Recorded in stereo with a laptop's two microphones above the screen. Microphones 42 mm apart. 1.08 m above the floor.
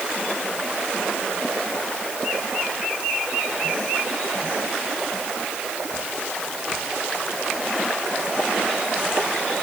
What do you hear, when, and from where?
Only background noise.